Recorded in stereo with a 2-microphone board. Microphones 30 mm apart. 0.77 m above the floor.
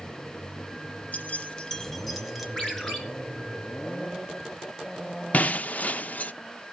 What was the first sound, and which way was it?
Keys jangling, 65° left (ahead or behind).